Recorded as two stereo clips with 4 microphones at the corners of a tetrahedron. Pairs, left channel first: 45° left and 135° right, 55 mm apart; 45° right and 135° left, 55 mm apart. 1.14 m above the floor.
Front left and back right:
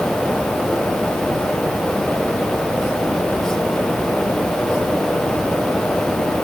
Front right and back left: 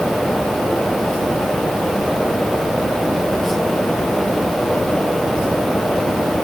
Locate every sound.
Only background noise.